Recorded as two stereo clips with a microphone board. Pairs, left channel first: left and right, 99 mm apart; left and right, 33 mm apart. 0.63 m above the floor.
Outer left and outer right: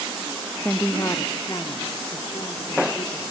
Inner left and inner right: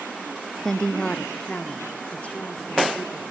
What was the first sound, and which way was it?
A woman speaking, 15° left (ahead or behind).